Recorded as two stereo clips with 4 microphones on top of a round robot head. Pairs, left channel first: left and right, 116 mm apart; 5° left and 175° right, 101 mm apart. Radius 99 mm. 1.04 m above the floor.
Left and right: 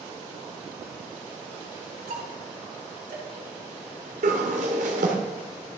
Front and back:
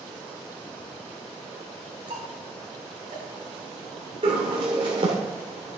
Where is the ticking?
125° right, 3 m.